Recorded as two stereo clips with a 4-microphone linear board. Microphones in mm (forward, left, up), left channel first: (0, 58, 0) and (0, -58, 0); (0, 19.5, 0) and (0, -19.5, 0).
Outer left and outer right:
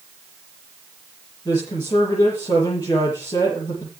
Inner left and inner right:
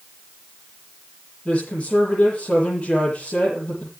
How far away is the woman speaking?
About 8.5 m.